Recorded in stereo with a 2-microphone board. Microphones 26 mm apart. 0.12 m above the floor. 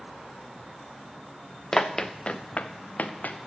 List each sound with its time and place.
1.7 s running footsteps: 15° left (ahead or behind), 0.9 m; by 3.5 s 80° left, 1.3 m